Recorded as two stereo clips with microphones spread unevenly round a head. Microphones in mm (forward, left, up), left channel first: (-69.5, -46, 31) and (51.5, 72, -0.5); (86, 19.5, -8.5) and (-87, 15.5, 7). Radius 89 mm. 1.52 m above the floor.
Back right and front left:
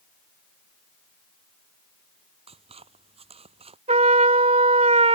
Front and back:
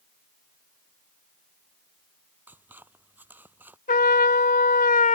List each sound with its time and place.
2.5 s scissors: 100° left
3.9 s a trumpet: 10° right